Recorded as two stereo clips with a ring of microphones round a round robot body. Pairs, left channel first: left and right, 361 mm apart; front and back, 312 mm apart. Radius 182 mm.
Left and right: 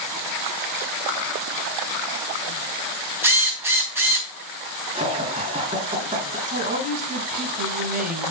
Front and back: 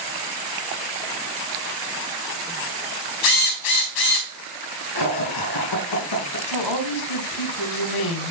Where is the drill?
5° right, 3.5 m.